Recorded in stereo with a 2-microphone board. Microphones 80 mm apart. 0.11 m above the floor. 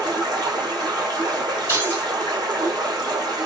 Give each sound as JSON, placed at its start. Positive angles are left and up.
{"t": 0.0, "sound": "running water", "side_deg": -65, "distance_m": 2.0}
{"t": 1.7, "sound": "keys jangling", "side_deg": -35, "distance_m": 1.6}